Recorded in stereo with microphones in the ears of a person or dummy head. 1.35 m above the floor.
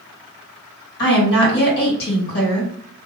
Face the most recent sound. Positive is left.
turn(degrees=55)  # may be behind; listen again after turning